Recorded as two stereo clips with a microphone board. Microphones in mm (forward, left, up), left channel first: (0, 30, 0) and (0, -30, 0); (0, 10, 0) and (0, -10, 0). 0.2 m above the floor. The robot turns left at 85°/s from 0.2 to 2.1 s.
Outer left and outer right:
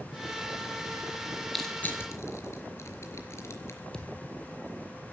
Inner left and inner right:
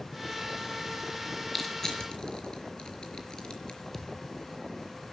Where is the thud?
15° left (ahead or behind), 2 m.